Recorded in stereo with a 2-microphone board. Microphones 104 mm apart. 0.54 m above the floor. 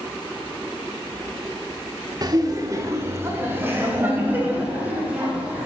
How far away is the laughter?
About 0.9 m.